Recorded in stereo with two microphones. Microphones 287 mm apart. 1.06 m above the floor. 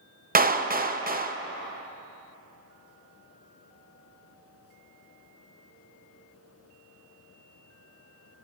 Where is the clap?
30° right (ahead or behind), 0.6 m.